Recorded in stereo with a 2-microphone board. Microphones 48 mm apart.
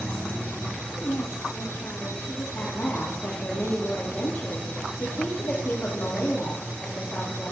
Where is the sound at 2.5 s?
50° left (ahead or behind), 3 m.